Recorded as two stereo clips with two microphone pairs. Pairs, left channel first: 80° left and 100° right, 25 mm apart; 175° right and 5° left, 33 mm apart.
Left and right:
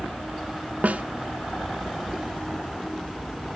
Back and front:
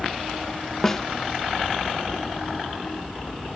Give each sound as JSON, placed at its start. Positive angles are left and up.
{"t": 0.8, "sound": "a snare drum", "azimuth_deg": -105, "distance_m": 0.5}